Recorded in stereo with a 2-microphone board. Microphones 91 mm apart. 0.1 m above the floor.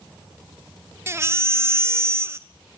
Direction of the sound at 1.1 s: 30° right (ahead or behind).